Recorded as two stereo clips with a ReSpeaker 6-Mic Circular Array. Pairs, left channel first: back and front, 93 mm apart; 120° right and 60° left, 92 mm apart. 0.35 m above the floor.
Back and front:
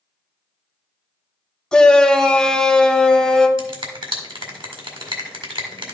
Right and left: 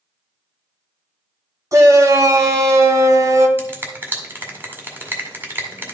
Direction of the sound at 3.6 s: 5° right.